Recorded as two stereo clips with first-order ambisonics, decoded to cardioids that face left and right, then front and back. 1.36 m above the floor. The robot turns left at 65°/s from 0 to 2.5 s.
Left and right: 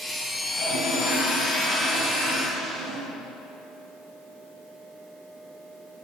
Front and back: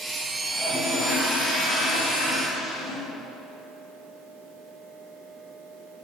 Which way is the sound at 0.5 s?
85° left.